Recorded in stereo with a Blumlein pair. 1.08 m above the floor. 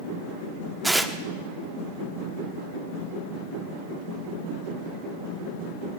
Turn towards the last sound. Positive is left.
turn(degrees=-5)